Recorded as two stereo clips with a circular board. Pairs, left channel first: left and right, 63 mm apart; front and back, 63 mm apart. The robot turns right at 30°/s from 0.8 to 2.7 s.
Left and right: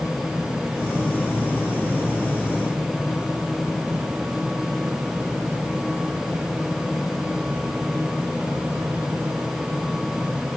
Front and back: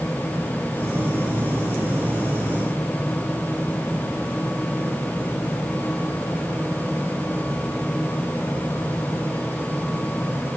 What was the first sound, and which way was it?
Only background noise.